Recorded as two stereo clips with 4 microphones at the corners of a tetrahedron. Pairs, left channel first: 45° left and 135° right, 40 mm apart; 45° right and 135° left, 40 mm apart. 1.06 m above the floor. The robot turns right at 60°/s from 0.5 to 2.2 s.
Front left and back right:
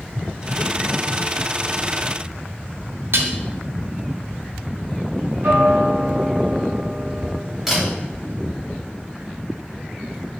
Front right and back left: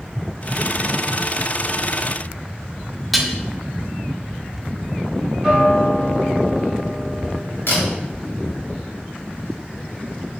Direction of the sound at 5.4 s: 135° right.